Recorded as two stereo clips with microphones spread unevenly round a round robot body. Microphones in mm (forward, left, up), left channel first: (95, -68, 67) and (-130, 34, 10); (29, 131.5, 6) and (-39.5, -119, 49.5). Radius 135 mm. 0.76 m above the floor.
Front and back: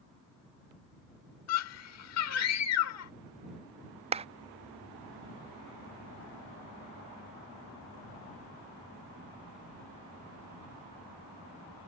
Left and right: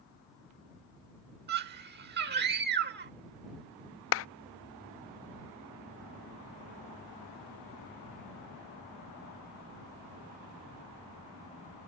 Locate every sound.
1.5 s a scream: 50° right
4.1 s a clap: 95° left